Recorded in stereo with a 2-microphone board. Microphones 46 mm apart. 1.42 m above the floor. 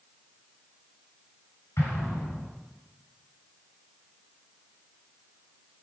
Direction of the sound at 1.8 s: 85° left.